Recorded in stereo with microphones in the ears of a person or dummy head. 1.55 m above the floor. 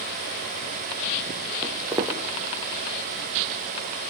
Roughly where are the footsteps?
Centre.